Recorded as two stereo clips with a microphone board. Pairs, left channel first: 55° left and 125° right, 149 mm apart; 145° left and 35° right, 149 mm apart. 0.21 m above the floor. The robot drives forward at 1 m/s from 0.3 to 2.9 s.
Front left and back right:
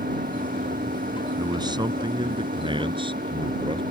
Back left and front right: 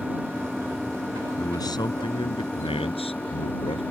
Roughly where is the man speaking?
Behind.